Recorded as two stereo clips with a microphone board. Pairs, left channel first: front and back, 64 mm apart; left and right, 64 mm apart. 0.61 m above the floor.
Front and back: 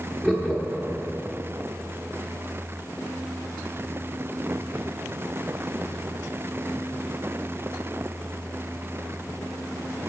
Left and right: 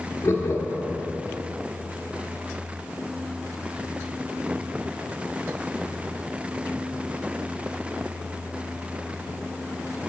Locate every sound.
0.2 s laughter: 90° left, 0.7 m